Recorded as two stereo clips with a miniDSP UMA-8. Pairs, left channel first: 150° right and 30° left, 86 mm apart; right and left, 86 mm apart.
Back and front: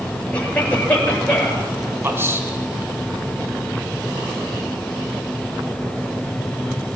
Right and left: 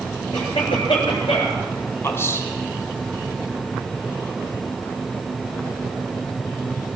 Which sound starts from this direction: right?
A cough, at 0.3 s.